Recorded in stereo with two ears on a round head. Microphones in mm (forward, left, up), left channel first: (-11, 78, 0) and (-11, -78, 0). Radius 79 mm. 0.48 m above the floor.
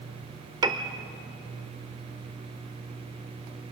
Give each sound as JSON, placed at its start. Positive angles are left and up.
{"t": 0.6, "sound": "a piano", "side_deg": -25, "distance_m": 0.9}